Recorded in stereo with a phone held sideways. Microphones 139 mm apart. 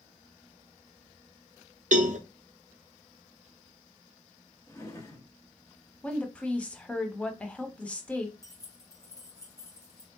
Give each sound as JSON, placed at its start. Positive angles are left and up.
{"t": 1.9, "sound": "a cowbell", "side_deg": -65, "distance_m": 0.5}
{"t": 4.7, "sound": "a drawer", "side_deg": 25, "distance_m": 0.9}
{"t": 6.0, "sound": "a woman speaking", "side_deg": 10, "distance_m": 0.7}
{"t": 8.4, "sound": "keys jangling", "side_deg": 25, "distance_m": 1.0}